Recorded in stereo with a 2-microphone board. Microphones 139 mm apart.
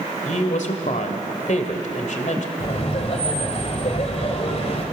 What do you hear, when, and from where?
0.2 s a woman speaking: 65° left (ahead or behind), 2 m
2.6 s laughter: 50° left (ahead or behind), 1.9 m